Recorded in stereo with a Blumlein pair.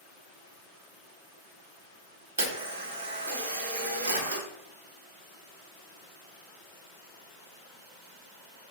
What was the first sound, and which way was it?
A camera shutter, 65° right.